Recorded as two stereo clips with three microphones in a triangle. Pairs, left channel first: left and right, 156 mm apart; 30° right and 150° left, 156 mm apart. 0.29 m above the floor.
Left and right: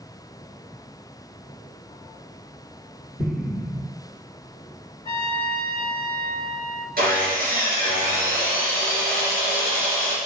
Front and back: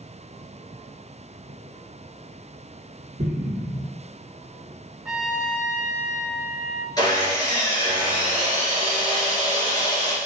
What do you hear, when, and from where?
3.2 s an explosion: 165° right, 1.5 m
5.0 s a trumpet: 70° left, 0.8 m
7.0 s sawing: 95° right, 3 m